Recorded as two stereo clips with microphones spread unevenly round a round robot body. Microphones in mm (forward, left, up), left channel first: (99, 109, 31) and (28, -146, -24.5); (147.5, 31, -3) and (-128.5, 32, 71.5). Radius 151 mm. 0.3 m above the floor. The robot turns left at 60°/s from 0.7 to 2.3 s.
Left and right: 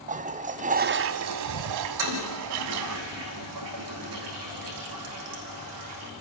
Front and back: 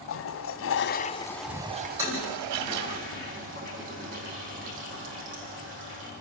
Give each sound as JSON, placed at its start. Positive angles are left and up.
{"t": 0.1, "sound": "a toilet flushing", "azimuth_deg": -45, "distance_m": 0.5}
{"t": 2.0, "sound": "a toilet flushing", "azimuth_deg": -100, "distance_m": 5.0}